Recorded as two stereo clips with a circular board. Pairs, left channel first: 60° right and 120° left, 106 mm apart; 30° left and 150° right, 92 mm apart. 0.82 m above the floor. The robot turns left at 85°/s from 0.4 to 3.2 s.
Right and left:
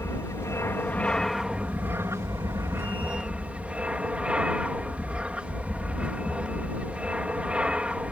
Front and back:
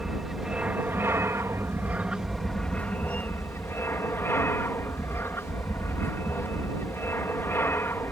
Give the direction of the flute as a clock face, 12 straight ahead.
I don't hear a flute.